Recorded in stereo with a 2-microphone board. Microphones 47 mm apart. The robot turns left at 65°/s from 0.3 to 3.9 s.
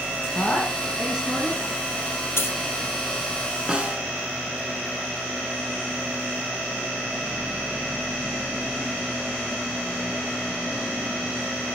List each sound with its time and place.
0.3 s a woman speaking: 35° left, 8.5 m; by 1.6 s 45° right, 8.5 m
2.4 s a dropped coin: 65° left (ahead or behind), 2 m; by 2.6 s 75° left (ahead or behind), 2 m
3.7 s a snare drum: 20° right (ahead or behind), 1.7 m; by 4.1 s 30° right (ahead or behind), 1.7 m